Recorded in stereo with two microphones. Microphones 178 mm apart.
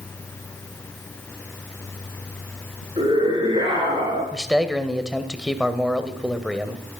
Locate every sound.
3.0 s a scream: 30° right (ahead or behind), 9 m; by 4.2 s 25° right (ahead or behind), 9.5 m
4.3 s a man speaking: 5° right (ahead or behind), 1.9 m